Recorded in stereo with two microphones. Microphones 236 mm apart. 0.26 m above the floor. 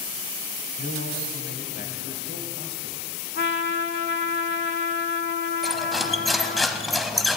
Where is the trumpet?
50° left (ahead or behind), 0.7 m.